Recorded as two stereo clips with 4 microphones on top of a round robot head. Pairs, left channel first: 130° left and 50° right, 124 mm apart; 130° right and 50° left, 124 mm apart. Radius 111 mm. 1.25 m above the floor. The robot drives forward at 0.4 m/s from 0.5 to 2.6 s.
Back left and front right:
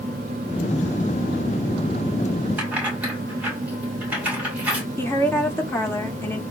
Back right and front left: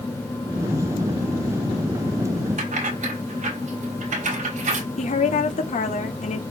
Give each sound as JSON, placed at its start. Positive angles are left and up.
{"t": 2.6, "sound": "keys jangling", "azimuth_deg": 30, "distance_m": 6.0}
{"t": 5.0, "sound": "a woman speaking", "azimuth_deg": -155, "distance_m": 3.5}